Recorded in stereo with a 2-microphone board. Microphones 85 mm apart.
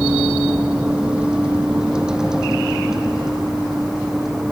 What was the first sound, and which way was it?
A vehicle, 15° right (ahead or behind).